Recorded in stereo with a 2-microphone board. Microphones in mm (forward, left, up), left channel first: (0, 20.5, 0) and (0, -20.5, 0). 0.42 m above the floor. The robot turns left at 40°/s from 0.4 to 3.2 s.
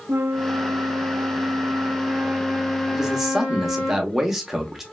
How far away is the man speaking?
About 0.8 m.